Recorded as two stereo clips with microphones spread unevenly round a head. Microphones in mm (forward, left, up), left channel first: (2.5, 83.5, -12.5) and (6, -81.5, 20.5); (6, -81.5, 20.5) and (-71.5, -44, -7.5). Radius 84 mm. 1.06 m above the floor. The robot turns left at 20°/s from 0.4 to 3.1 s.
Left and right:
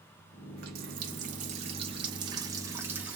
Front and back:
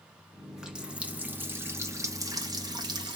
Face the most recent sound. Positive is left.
turn(degrees=-170)